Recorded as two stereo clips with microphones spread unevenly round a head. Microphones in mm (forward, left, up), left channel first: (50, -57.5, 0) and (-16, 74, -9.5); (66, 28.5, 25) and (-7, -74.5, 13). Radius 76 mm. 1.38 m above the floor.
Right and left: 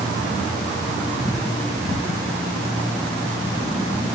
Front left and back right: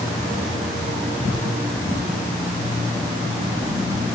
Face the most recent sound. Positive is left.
No sound to turn to.